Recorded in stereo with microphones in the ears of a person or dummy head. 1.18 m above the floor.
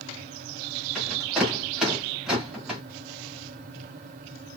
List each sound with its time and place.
0.9 s a rattle: centre (ahead or behind), 1.2 m